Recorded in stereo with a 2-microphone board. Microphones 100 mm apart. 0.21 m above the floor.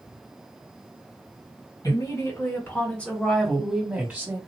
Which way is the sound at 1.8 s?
40° left (ahead or behind).